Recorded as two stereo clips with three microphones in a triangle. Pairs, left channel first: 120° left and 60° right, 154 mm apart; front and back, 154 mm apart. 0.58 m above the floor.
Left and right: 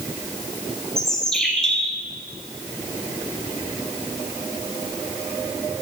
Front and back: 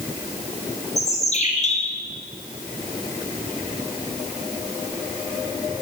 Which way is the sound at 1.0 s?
35° left.